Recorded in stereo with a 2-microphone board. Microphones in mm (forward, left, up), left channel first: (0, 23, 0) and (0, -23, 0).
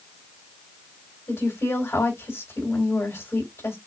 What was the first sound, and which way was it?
A woman speaking, 80° left.